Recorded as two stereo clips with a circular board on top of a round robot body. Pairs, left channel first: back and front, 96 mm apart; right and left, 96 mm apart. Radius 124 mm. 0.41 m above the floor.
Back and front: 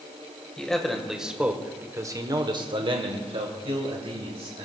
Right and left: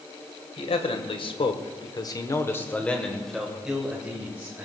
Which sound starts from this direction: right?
A man speaking, at 0.6 s.